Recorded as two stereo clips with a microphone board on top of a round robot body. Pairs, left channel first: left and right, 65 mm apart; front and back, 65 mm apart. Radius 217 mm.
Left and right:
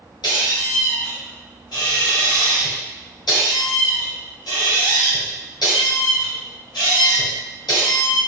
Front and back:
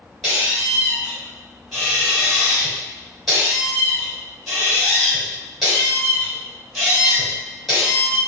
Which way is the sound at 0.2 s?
85° left.